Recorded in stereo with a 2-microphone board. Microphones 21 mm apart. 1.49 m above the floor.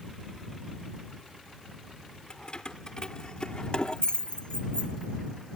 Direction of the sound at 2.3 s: 40° left (ahead or behind).